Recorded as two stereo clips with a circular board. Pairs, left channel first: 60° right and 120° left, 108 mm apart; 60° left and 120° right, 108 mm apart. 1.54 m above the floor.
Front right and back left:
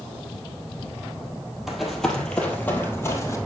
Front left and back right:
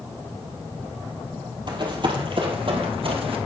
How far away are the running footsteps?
About 2.5 m.